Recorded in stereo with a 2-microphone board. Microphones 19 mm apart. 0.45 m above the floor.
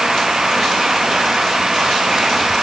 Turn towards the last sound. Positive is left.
No sound to turn to.